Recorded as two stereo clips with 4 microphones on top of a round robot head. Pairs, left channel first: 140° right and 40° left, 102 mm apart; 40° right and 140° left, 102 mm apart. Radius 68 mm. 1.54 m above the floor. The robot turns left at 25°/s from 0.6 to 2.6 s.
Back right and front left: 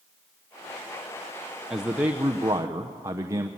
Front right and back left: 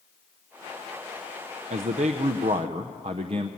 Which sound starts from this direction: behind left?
A man speaking, at 1.7 s.